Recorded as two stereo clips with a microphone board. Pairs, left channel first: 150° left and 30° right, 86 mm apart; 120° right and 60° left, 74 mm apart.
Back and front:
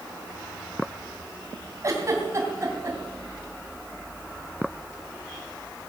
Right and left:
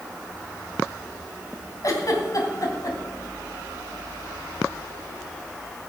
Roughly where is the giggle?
Right.